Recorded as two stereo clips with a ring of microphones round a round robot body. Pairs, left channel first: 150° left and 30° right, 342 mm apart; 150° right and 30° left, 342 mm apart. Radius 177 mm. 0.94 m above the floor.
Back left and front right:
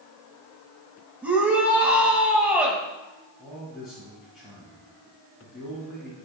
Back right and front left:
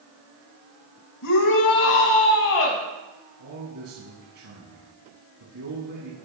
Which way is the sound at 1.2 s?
115° right.